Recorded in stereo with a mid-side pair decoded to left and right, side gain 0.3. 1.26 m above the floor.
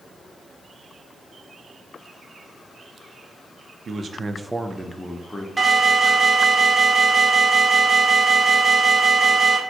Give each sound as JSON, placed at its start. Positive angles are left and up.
{"t": 3.9, "sound": "a man speaking", "azimuth_deg": -65, "distance_m": 0.6}
{"t": 5.6, "sound": "an alarm", "azimuth_deg": -25, "distance_m": 1.4}